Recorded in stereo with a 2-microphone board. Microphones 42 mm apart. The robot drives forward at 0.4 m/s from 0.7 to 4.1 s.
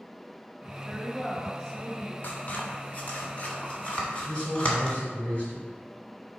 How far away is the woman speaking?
About 1.3 m.